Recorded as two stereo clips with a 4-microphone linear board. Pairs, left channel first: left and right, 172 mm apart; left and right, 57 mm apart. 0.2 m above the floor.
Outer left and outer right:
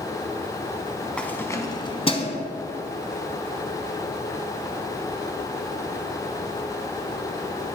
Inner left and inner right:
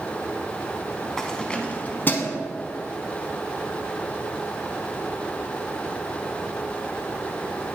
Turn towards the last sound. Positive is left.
turn(degrees=40)  # may be behind; listen again after turning